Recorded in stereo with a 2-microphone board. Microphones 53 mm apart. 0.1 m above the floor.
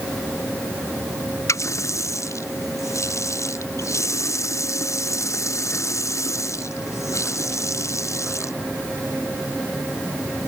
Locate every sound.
1.5 s a running tap: 65° left (ahead or behind)